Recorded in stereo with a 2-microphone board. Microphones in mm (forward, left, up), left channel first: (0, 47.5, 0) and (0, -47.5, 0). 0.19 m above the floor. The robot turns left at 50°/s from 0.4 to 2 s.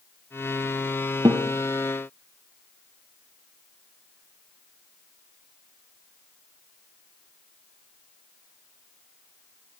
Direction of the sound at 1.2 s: 45° right (ahead or behind).